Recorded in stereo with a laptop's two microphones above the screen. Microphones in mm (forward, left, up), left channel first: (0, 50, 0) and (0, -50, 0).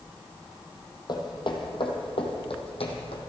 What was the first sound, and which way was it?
Footsteps, 45° left (ahead or behind).